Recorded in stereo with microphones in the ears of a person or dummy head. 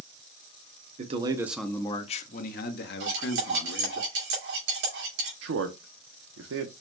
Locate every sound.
1.0 s a man speaking: 35° right (ahead or behind), 0.6 m; by 4.0 s 65° left (ahead or behind), 1.6 m
3.0 s cutlery clinking: 60° right (ahead or behind), 2 m
5.4 s a man speaking: 80° right, 0.7 m